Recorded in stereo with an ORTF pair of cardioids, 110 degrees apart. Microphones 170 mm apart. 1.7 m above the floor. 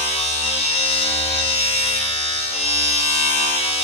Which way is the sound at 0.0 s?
35° left.